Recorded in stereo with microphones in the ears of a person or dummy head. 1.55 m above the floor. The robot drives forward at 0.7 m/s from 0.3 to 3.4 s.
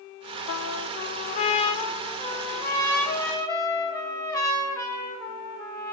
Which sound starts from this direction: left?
A trumpet, at 0.5 s.